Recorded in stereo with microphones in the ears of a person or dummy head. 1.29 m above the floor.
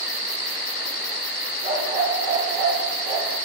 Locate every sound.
1.6 s a dog barking: 35° right (ahead or behind), 9.5 m